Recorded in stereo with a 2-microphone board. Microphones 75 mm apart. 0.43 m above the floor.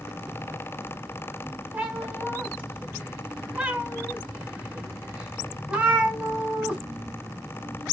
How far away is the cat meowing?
About 1.6 m.